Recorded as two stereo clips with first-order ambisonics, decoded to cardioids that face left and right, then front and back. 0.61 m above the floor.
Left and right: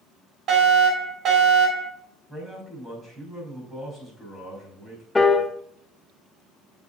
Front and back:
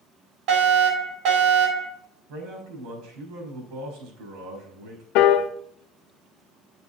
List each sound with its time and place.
0.5 s a fire alarm: 150° right, 4.5 m
2.3 s a man speaking: 175° right, 5 m
5.2 s a piano: 10° left, 0.7 m